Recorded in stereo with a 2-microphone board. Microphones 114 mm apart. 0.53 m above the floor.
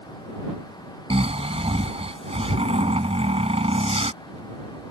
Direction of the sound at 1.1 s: 60° right (ahead or behind).